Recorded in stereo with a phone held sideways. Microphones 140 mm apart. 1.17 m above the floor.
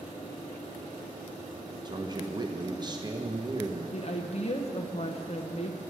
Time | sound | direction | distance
1.9 | a man speaking | 30° right (ahead or behind) | 0.9 m
3.9 | a woman speaking | 50° left (ahead or behind) | 0.8 m